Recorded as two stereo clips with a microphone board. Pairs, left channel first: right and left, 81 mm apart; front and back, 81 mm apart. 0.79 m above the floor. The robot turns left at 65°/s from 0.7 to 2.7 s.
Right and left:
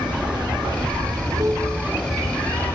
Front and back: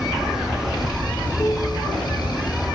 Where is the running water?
95° left, 1.8 m; by 2.8 s 35° right, 1.8 m.